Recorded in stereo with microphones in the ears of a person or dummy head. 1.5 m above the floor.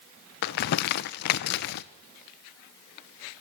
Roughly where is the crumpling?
Left.